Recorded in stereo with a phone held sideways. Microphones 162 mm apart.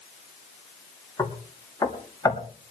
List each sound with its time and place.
1.2 s knocking: 20° left (ahead or behind), 1.9 m